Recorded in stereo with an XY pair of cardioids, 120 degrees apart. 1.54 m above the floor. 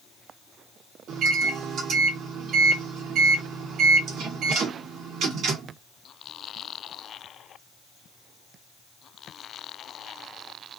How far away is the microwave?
About 0.9 m.